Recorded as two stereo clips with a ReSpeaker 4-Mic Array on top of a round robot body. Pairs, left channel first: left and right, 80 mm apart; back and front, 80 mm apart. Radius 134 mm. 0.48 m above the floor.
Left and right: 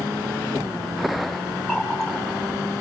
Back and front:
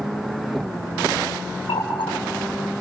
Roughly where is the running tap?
Behind.